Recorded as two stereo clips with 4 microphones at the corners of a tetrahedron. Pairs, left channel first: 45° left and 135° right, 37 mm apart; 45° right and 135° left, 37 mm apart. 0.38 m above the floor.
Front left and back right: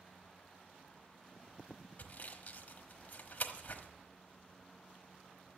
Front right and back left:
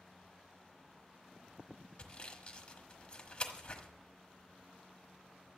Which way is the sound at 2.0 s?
15° left.